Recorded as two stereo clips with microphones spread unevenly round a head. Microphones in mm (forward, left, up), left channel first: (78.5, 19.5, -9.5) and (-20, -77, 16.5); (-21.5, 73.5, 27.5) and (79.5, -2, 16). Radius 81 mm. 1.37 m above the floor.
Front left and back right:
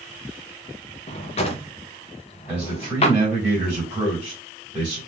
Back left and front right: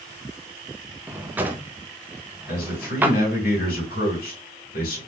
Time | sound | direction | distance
1.1 | a drawer | 35° left | 0.5 m
2.5 | a man speaking | 140° left | 2.0 m